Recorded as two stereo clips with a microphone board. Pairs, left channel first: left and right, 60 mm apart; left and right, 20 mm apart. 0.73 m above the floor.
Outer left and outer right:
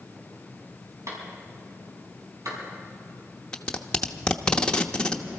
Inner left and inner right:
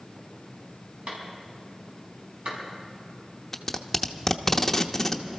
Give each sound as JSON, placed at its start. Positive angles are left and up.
{"t": 1.1, "sound": "a clap", "side_deg": -60, "distance_m": 5.5}
{"t": 3.5, "sound": "tape being pulled", "side_deg": 15, "distance_m": 0.8}